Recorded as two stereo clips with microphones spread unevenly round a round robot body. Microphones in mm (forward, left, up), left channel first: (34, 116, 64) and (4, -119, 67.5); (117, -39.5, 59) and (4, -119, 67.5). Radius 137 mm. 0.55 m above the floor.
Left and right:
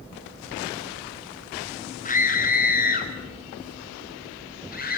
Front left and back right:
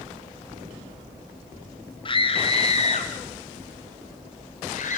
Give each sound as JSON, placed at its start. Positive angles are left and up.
{"t": 2.0, "sound": "a scream", "azimuth_deg": 50, "distance_m": 1.4}